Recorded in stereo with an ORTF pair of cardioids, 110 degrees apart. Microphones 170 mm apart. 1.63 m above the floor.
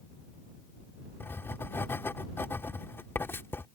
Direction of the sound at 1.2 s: 15° left.